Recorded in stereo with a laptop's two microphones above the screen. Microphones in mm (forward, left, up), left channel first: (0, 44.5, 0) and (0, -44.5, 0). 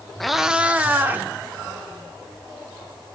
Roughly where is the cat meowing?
Centre.